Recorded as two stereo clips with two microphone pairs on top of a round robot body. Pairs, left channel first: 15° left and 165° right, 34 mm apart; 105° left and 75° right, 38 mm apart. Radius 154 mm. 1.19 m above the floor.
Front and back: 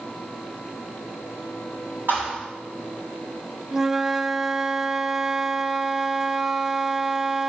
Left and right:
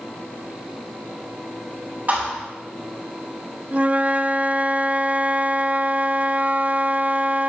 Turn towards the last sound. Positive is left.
turn(degrees=-65)